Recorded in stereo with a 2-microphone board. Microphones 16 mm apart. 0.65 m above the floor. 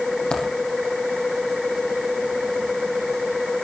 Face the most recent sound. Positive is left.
turn(degrees=75)  # may be behind; listen again after turning